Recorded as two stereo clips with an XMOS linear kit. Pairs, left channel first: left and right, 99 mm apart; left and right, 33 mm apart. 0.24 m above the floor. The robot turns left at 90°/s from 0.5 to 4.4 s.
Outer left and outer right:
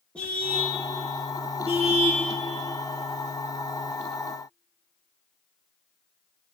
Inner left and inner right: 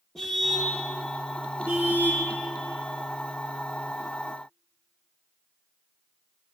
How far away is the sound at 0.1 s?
About 6.5 m.